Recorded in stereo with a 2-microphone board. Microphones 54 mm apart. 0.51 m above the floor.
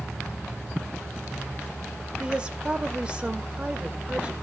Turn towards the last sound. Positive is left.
turn(degrees=-20)  # may be behind; listen again after turning